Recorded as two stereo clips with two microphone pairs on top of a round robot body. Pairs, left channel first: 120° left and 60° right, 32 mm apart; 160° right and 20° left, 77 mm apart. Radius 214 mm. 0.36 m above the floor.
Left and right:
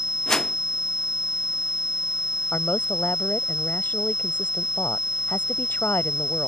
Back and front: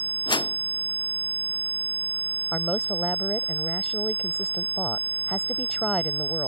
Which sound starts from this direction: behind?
A whoosh, at 0.3 s.